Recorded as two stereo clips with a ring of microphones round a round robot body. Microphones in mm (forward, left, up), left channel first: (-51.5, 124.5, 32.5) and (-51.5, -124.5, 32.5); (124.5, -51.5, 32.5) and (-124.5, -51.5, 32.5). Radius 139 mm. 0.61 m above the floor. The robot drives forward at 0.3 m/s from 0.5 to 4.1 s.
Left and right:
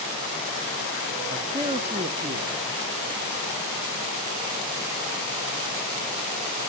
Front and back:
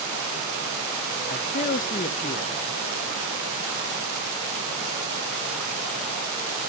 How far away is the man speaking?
About 1.4 m.